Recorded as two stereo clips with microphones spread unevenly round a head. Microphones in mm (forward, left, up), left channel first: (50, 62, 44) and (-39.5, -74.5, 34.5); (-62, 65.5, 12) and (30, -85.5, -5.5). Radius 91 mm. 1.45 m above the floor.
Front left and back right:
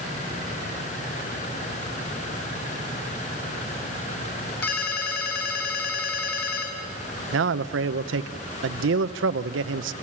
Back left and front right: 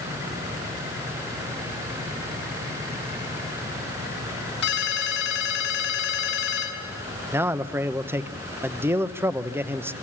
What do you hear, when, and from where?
4.6 s a ringtone: 95° left, 5.5 m
7.3 s a man speaking: 140° right, 0.9 m